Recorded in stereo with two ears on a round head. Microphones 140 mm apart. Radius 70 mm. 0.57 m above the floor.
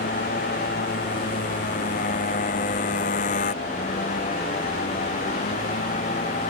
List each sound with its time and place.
0.0 s a motorcycle: 55° left (ahead or behind); by 6.5 s 50° left (ahead or behind)